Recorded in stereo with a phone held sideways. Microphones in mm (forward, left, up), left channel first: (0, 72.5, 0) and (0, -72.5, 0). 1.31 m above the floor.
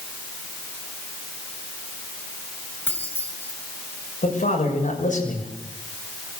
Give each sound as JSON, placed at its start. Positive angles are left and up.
{"t": 2.9, "sound": "keys jangling", "side_deg": 15, "distance_m": 6.5}
{"t": 4.2, "sound": "a man speaking", "side_deg": 60, "distance_m": 7.0}